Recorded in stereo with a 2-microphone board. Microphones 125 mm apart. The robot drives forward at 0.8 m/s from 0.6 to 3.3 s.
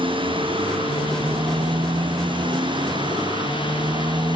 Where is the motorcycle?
40° right (ahead or behind).